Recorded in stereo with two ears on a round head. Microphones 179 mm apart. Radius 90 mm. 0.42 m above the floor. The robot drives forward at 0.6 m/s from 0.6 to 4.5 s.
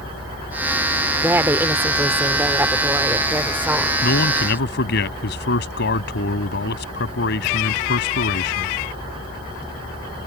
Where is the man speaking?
55° left (ahead or behind); by 8.8 s 60° left (ahead or behind).